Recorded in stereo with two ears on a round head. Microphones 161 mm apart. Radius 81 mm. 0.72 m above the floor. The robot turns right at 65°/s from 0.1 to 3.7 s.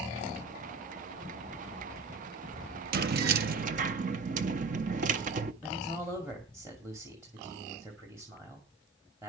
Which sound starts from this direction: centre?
A man speaking, at 5.6 s.